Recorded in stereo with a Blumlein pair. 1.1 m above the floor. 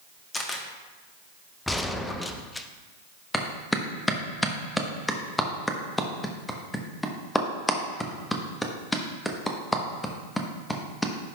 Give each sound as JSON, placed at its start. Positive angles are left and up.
{"t": 0.3, "sound": "a camera shutter", "azimuth_deg": 15, "distance_m": 1.3}
{"t": 1.7, "sound": "a gunshot", "azimuth_deg": 5, "distance_m": 0.7}
{"t": 3.3, "sound": "a clap", "azimuth_deg": 5, "distance_m": 1.1}